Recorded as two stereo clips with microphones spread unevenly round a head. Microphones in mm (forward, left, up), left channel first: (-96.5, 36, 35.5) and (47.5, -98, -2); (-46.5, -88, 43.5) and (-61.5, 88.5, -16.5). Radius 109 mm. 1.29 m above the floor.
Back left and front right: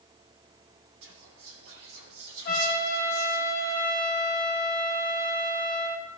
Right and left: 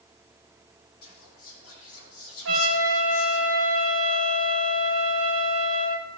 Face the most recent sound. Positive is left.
turn(degrees=85)